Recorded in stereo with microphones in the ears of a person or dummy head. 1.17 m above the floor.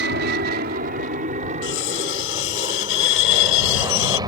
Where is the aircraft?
60° right (ahead or behind); by 4.3 s 25° right (ahead or behind).